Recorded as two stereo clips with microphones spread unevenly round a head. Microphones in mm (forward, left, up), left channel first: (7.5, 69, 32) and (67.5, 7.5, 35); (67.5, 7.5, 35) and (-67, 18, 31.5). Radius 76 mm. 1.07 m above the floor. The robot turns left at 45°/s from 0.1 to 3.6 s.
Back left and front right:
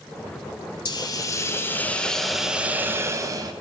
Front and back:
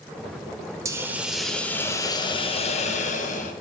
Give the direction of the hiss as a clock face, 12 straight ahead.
8 o'clock.